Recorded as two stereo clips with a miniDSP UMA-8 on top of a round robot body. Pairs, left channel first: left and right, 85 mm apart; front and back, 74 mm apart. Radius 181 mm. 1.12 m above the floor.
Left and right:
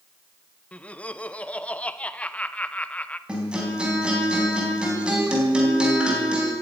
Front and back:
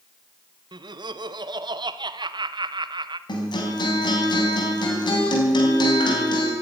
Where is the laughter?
165° left, 1.1 m.